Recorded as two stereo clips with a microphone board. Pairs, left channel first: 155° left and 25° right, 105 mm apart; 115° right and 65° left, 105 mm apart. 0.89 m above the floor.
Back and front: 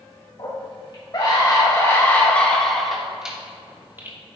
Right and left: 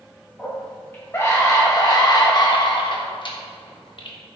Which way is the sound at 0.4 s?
175° left.